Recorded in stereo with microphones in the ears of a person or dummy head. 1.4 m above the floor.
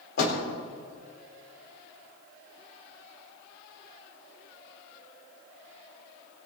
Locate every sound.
0.2 s a door slam: 70° left (ahead or behind), 4 m